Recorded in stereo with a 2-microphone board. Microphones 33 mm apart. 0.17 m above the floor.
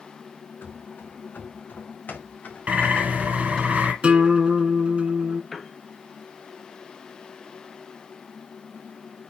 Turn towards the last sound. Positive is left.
turn(degrees=5)  # may be behind; listen again after turning